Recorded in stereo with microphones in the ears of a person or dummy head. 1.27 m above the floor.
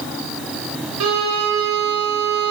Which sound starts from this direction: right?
A violin, at 1.0 s.